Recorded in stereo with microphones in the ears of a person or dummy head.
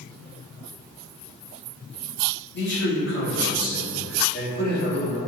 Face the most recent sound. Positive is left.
turn(degrees=50)  # may be behind; listen again after turning